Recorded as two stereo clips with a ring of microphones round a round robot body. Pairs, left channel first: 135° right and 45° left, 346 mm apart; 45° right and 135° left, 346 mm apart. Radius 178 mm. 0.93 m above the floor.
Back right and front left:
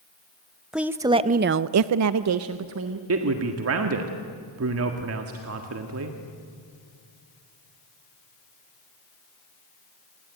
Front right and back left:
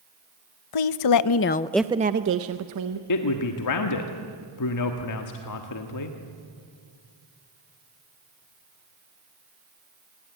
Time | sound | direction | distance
0.7 | a woman speaking | 45° right | 1.1 m
3.1 | a man speaking | 5° right | 1.7 m